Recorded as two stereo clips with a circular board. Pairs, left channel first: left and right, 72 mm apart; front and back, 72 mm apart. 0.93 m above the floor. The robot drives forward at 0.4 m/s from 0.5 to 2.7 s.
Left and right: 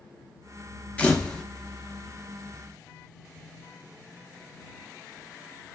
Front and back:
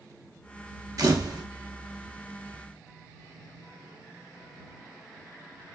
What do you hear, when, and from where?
1.0 s a camera shutter: 160° left, 0.6 m; by 1.4 s 165° left, 0.8 m